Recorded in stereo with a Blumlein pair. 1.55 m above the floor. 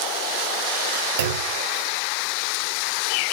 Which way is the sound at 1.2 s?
65° right.